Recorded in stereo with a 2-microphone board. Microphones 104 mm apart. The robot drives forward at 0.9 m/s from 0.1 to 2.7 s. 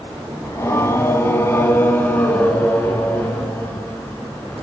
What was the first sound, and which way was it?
Singing, 25° left (ahead or behind).